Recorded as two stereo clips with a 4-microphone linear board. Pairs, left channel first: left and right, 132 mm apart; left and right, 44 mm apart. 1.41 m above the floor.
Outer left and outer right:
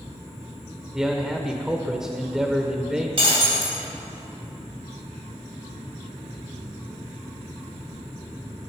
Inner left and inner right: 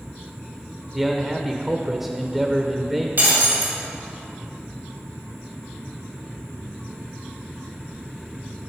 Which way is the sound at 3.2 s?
50° right (ahead or behind).